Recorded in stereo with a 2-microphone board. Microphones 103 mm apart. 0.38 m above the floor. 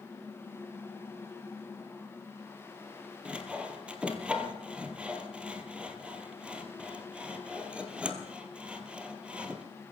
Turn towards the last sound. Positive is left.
turn(degrees=-10)  # may be behind; listen again after turning